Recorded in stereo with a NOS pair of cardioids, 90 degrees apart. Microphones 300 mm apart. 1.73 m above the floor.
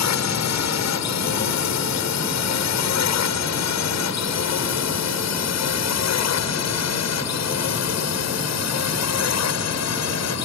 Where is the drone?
65° left; by 10.5 s 60° left.